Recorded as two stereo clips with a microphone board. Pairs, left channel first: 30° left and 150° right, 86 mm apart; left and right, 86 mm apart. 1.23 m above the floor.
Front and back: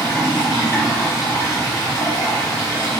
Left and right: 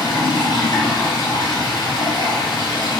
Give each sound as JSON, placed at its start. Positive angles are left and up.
{"t": 0.0, "sound": "running water", "azimuth_deg": 80, "distance_m": 1.7}